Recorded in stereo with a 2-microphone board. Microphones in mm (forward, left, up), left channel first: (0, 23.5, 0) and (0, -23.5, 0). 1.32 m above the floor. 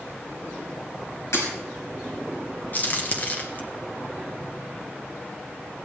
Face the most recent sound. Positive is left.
turn(degrees=40)  # may be behind; listen again after turning